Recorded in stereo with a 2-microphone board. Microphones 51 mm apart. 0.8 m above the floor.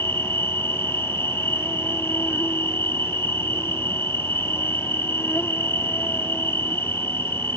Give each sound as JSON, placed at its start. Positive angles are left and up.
{"t": 0.0, "sound": "an insect", "side_deg": 55}